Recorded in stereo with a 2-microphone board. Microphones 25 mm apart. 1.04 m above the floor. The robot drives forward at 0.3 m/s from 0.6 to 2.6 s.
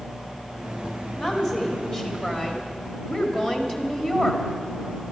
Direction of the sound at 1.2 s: 35° left (ahead or behind).